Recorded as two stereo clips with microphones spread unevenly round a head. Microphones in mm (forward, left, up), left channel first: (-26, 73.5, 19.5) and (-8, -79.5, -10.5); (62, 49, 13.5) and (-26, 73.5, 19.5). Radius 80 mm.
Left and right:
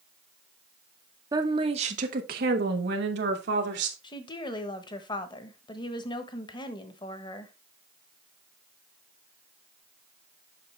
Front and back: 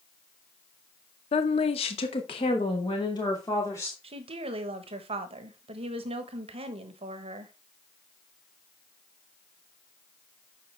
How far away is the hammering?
No hammering in this recording.